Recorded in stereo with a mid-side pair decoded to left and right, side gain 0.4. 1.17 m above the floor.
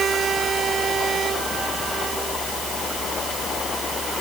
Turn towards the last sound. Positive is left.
No sound to turn to.